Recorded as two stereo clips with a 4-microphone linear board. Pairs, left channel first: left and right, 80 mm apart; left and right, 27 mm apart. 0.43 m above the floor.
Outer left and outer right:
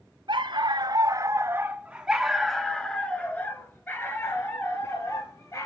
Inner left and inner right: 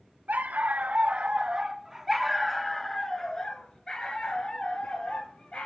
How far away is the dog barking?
About 1.1 m.